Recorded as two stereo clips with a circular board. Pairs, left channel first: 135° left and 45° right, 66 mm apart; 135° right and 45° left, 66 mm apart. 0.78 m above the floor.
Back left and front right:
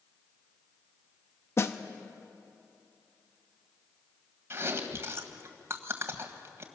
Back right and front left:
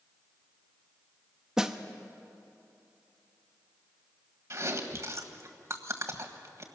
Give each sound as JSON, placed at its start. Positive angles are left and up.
{"t": 1.6, "sound": "a snare drum", "azimuth_deg": 120, "distance_m": 1.0}
{"t": 4.5, "sound": "chewing", "azimuth_deg": 5, "distance_m": 1.6}